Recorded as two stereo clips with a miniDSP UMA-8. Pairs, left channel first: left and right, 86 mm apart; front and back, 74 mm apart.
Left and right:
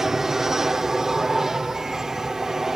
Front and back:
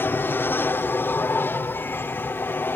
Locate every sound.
0.0 s an aircraft: 10° right